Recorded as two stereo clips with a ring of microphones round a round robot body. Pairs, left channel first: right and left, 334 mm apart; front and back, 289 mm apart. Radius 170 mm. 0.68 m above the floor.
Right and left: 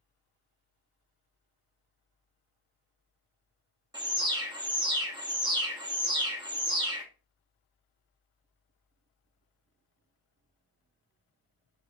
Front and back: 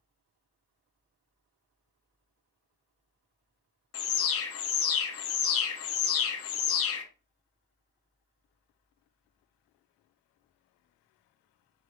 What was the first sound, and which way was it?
An alarm, 15° left.